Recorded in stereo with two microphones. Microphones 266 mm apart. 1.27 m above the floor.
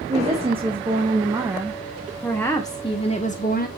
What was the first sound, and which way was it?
A woman speaking, 25° right (ahead or behind).